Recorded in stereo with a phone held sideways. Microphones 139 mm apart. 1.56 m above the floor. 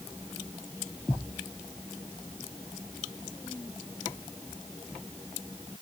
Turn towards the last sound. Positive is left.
No sound to turn to.